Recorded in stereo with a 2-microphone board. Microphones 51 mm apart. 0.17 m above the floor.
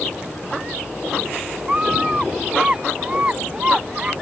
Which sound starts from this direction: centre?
A scream, at 1.7 s.